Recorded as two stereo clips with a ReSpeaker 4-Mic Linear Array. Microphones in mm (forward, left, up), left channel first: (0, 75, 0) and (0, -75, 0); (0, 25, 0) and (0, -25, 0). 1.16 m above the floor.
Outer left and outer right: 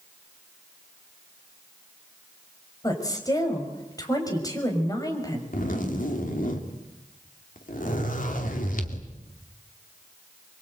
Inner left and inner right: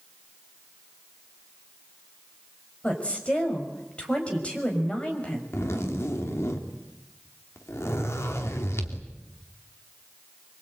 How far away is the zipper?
About 2.5 m.